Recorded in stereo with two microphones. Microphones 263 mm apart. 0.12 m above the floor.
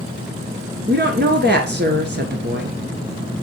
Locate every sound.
0.9 s a woman speaking: 40° right (ahead or behind), 1.6 m